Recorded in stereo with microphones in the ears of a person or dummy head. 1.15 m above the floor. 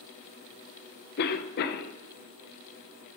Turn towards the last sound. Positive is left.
turn(degrees=55)  # may be behind; listen again after turning